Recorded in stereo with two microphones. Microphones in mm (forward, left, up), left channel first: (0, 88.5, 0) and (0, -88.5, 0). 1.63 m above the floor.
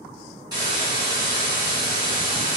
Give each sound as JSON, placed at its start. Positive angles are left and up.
{"t": 0.5, "sound": "a hiss", "side_deg": -25, "distance_m": 1.9}